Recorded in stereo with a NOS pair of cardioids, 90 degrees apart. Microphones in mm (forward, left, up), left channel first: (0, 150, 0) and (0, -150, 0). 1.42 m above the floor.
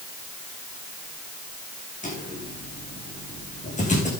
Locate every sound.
2.0 s footsteps: 25° left, 5.5 m